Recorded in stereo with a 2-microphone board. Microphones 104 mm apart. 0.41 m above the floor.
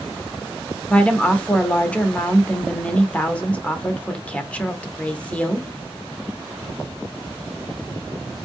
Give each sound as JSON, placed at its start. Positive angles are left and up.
{"t": 0.9, "sound": "a woman speaking", "side_deg": 15, "distance_m": 0.7}